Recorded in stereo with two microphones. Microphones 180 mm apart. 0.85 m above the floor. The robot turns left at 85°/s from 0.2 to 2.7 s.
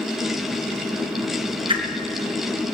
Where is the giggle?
I don't hear a giggle.